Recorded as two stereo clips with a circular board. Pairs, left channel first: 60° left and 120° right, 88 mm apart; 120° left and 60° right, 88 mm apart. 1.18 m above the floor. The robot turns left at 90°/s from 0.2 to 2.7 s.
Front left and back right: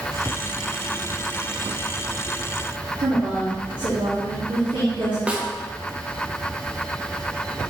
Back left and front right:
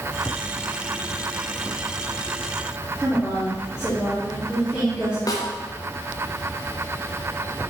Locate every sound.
3.0 s a woman speaking: 140° right, 1.2 m
5.3 s a snare drum: 165° left, 0.6 m